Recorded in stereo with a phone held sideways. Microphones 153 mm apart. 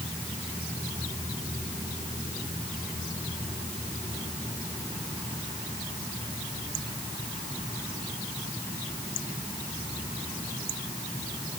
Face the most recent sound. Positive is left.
No sound to turn to.